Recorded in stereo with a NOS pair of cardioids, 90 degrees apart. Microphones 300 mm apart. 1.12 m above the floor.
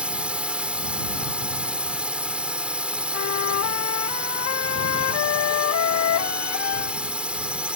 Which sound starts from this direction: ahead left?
A flute, at 3.1 s.